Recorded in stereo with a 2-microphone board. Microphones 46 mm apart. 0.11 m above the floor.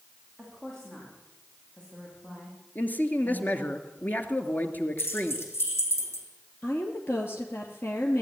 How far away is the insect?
No insect in this recording.